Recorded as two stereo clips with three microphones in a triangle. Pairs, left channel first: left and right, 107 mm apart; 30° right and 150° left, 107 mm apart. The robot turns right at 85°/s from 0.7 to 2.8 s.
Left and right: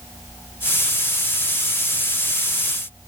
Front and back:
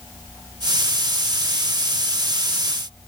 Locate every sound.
Only background noise.